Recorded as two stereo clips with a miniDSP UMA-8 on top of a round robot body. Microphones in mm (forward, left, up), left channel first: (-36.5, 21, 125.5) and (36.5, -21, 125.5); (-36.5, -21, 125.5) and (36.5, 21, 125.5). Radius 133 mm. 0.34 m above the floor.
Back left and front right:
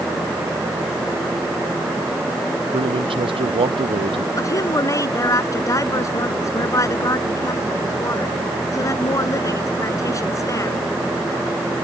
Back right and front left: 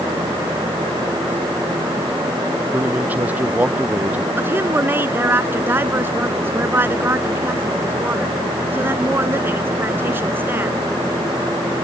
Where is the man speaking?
40° right.